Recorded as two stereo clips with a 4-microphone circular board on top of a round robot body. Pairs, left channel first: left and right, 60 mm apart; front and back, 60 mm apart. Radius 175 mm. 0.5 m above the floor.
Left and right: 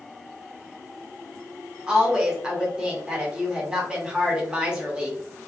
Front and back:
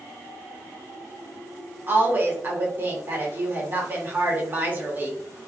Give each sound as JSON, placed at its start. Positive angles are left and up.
{"t": 1.9, "sound": "a woman speaking", "azimuth_deg": -155, "distance_m": 1.3}